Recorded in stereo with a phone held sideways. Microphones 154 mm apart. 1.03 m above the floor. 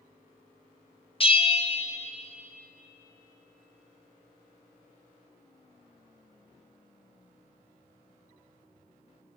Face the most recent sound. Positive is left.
turn(degrees=35)  # may be behind; listen again after turning